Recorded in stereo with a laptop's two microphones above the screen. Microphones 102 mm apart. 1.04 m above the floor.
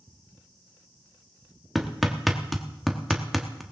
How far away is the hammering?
About 1.3 m.